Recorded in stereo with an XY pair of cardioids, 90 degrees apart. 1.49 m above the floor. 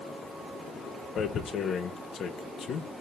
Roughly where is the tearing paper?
Ahead left.